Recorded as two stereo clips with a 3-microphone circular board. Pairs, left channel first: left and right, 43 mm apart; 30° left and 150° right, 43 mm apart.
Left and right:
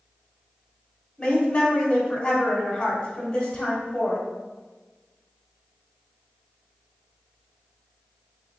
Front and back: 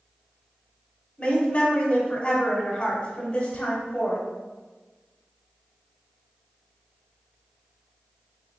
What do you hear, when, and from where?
1.2 s a woman speaking: 45° left, 1.0 m